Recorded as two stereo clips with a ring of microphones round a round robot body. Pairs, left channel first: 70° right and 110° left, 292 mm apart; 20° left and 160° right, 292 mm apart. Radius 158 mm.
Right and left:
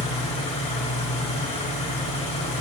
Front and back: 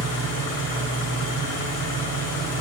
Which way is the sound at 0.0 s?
Straight ahead.